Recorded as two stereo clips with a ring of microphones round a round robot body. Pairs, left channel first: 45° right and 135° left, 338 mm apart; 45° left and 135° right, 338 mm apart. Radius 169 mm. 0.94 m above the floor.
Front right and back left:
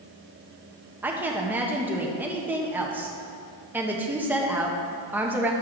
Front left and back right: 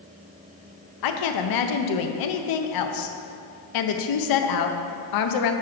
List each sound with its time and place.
1.0 s a woman speaking: 50° left, 0.7 m